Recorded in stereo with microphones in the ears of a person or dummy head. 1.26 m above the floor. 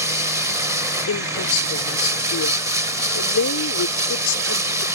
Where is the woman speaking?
85° left.